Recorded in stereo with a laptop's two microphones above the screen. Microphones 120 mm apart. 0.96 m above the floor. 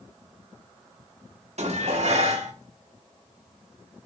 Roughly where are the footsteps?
I don't hear footsteps.